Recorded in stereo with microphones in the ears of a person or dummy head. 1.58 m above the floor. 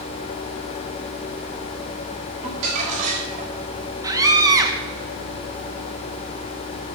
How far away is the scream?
About 2 m.